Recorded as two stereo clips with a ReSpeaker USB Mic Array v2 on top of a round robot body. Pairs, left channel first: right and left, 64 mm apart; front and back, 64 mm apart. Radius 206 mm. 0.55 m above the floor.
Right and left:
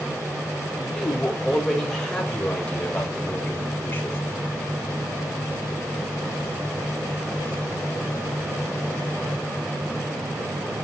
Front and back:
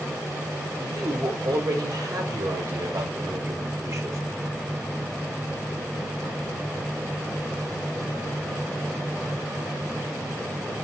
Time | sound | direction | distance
0.8 | a woman speaking | straight behind | 3.5 m